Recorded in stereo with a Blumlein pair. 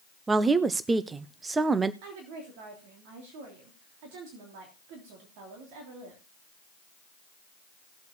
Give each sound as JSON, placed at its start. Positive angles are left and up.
{"t": 0.3, "sound": "a woman speaking", "azimuth_deg": -15, "distance_m": 0.6}
{"t": 2.0, "sound": "a woman speaking", "azimuth_deg": -45, "distance_m": 3.0}